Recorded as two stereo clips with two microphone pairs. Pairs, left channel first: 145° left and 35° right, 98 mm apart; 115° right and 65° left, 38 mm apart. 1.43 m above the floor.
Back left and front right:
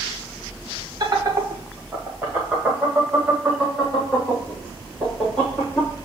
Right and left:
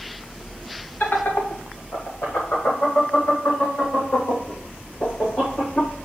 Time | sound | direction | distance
1.0 | laughter | 90° right | 1.6 m